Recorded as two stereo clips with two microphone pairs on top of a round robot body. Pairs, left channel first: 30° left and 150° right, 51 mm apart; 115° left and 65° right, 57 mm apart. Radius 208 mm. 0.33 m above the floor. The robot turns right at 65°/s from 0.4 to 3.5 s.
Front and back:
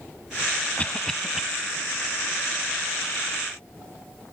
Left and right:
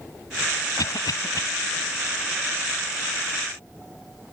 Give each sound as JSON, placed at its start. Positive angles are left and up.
{"t": 0.8, "sound": "a cough", "azimuth_deg": 95}